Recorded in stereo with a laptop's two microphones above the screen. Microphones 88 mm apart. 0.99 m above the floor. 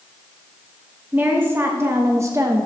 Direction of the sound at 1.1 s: 20° right (ahead or behind).